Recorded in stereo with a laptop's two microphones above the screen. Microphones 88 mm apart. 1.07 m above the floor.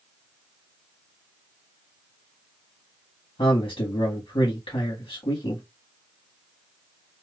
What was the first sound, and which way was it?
A man speaking, 75° left (ahead or behind).